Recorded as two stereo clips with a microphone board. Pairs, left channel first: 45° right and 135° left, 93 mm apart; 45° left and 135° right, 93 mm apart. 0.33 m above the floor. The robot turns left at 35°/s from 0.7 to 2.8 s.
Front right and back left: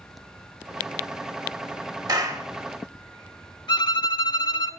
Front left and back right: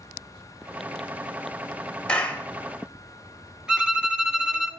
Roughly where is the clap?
Behind left.